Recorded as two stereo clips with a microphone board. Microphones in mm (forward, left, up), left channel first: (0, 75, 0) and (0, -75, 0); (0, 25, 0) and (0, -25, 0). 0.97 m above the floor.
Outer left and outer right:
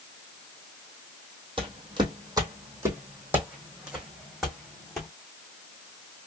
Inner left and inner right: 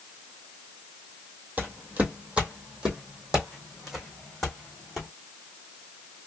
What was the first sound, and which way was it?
Footsteps, 35° right (ahead or behind).